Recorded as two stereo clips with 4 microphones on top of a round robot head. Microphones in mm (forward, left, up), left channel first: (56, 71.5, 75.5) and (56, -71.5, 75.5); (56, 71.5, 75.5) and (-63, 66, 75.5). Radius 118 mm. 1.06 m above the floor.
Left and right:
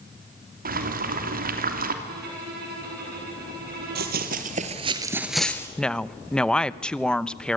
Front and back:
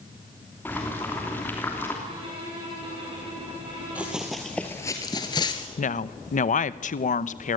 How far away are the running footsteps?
About 1.8 m.